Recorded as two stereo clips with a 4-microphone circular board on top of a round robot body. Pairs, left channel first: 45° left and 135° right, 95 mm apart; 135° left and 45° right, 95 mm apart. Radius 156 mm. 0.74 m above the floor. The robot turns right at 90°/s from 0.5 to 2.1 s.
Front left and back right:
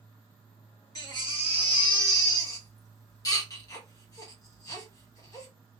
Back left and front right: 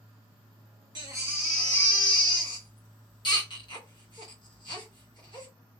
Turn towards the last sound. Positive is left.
turn(degrees=95)